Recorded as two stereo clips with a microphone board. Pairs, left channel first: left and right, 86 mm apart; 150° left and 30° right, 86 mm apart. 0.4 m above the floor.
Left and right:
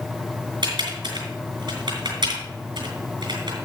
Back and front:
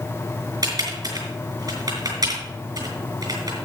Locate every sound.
0.6 s typing on a keyboard: 70° right, 3.5 m